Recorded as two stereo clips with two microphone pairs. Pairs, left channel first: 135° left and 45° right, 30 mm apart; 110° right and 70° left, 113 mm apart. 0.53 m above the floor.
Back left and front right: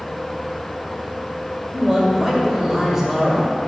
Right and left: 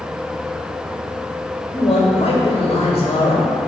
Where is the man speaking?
120° right, 1.6 m.